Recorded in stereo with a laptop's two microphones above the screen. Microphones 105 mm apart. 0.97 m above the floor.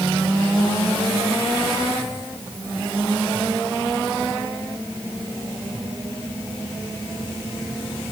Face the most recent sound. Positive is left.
No sound to turn to.